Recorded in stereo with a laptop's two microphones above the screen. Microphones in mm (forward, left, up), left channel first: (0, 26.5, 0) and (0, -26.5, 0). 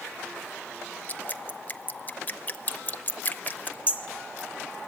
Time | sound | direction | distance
1.1 | dripping | 30° left (ahead or behind) | 0.7 m
3.9 | hammering | 25° right (ahead or behind) | 0.9 m